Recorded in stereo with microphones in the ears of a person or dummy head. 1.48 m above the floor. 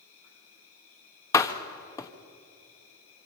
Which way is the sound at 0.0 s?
65° left (ahead or behind).